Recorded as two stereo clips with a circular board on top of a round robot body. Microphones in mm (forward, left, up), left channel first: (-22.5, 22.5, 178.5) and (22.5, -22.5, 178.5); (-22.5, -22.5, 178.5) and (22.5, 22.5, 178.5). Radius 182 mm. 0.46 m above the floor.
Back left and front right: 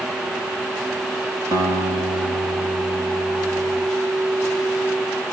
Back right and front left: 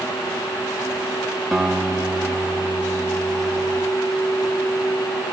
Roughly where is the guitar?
Ahead right.